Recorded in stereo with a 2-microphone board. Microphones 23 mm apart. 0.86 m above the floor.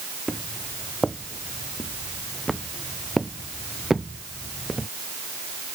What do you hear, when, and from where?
0.3 s footsteps: 10° left (ahead or behind); by 4.9 s 10° right (ahead or behind)